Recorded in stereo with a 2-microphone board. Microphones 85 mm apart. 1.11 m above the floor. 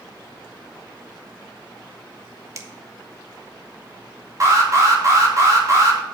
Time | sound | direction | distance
2.5 | a finger snap | 35° right (ahead or behind) | 1.4 m
4.4 | an alarm | 40° right (ahead or behind) | 3 m